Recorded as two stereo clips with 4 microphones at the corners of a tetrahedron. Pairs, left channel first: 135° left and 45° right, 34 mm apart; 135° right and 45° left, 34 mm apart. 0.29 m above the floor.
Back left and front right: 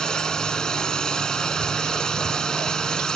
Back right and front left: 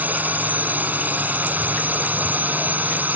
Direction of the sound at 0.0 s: 70° left.